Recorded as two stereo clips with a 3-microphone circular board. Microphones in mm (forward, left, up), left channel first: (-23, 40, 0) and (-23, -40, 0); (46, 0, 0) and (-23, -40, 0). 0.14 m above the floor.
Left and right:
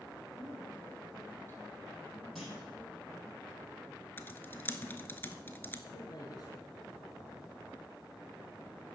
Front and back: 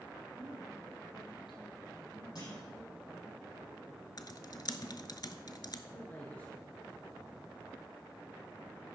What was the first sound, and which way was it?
A woman speaking, 35° left.